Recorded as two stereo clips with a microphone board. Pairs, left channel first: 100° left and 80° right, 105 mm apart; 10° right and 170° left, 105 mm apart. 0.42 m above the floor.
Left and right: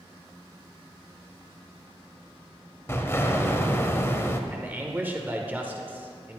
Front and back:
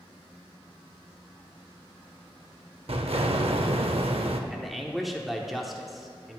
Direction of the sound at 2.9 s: 160° left.